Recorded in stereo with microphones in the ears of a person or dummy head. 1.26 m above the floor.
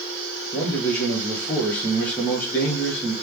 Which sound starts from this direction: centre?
A man speaking, at 0.5 s.